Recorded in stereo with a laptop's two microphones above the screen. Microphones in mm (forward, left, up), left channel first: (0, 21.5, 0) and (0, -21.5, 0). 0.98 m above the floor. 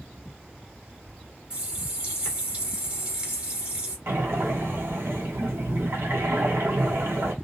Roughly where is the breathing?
Right.